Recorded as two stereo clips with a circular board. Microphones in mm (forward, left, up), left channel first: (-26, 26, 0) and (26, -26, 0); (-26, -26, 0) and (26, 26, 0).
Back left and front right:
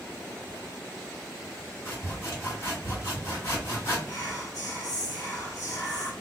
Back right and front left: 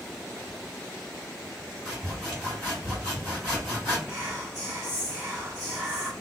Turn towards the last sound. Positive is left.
turn(degrees=100)